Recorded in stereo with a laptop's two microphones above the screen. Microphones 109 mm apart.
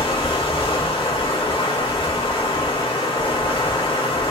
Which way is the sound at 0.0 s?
50° left (ahead or behind).